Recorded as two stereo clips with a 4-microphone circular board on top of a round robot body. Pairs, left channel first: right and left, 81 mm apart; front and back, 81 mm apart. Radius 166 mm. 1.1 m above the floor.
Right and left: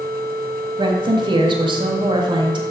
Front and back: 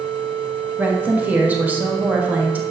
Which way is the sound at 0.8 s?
110° left.